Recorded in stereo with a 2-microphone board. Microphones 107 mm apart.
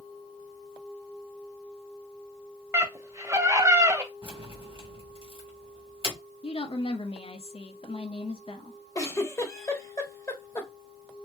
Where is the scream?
25° right (ahead or behind), 1.3 m.